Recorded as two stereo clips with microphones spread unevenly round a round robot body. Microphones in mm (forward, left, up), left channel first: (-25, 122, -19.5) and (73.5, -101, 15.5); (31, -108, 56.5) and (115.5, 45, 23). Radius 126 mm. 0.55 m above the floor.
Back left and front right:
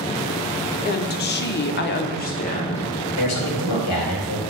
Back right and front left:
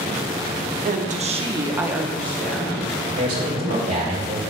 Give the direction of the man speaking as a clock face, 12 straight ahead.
8 o'clock.